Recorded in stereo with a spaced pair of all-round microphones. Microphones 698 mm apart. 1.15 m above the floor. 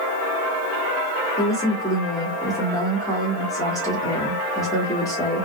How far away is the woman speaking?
About 1.1 m.